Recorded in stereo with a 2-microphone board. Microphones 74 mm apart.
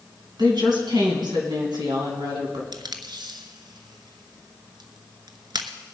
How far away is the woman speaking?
About 3.5 m.